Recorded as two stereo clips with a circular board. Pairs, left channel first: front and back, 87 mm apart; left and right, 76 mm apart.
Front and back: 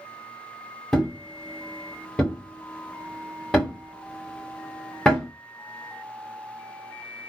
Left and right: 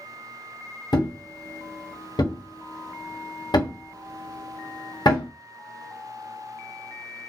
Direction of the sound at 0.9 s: 80° left.